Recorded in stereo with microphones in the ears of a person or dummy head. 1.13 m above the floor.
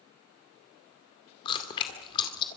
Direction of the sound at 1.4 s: 30° left (ahead or behind).